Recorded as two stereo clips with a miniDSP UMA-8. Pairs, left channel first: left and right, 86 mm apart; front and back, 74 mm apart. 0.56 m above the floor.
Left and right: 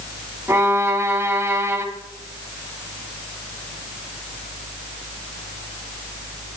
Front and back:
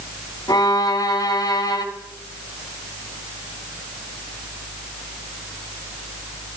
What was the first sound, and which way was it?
A violin, 30° right.